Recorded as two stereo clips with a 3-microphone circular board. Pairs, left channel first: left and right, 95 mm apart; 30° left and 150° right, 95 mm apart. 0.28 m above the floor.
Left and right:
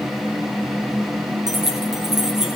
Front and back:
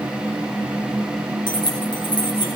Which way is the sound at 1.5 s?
5° right.